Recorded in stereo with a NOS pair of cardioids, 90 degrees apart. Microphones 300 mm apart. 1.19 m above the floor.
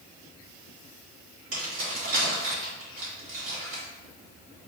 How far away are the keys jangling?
About 1.8 m.